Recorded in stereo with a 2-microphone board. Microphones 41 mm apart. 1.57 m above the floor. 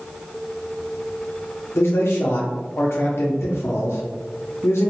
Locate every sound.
1.8 s a man speaking: 85° left, 0.5 m